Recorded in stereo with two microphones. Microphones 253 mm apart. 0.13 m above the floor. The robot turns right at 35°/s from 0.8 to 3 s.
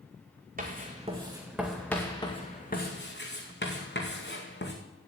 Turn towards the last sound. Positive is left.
turn(degrees=45)  # may be behind; listen again after turning